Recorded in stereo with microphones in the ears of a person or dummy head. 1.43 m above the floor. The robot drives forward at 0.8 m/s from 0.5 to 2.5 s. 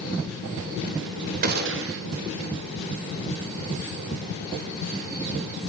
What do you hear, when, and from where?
1.4 s a gunshot: 50° right (ahead or behind), 0.7 m; by 2.0 s 65° right (ahead or behind), 0.6 m